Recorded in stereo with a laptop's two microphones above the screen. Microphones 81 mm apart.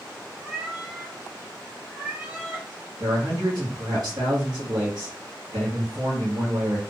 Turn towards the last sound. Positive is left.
turn(degrees=-50)  # may be behind; listen again after turning